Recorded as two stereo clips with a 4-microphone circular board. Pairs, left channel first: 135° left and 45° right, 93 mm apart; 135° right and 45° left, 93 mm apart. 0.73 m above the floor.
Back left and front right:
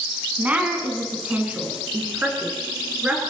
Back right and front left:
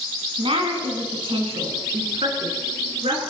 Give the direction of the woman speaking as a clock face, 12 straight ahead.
11 o'clock.